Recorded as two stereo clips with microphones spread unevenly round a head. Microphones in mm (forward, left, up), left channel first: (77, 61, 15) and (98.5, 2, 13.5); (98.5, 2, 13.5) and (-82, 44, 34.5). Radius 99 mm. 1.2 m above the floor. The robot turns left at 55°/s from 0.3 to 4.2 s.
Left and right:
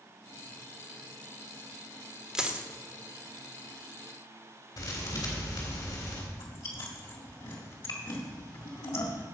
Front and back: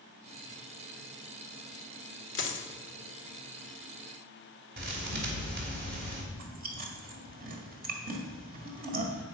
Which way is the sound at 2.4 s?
10° left.